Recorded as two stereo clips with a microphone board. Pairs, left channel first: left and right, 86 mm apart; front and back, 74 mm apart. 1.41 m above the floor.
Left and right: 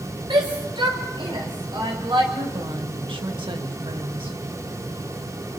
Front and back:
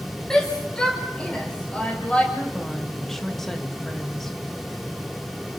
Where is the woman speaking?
85° right, 2.0 m.